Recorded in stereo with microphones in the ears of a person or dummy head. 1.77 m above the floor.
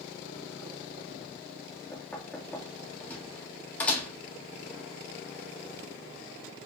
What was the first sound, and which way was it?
Knocking, 10° left (ahead or behind).